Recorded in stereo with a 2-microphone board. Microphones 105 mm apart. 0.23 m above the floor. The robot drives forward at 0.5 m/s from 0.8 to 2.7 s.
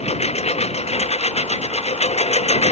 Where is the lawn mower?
85° left; by 2.7 s 80° left.